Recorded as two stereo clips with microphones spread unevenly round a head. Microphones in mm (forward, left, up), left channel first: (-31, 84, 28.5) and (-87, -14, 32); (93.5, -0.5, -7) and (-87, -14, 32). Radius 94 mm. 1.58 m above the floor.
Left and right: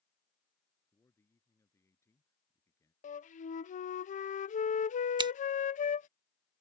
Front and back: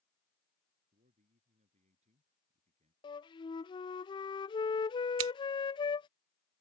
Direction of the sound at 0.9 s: 130° left.